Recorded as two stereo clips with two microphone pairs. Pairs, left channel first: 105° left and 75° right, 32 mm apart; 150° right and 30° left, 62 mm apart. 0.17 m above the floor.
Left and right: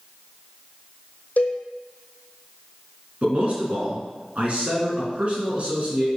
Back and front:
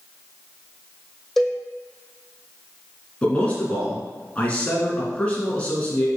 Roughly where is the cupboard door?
No cupboard door in this recording.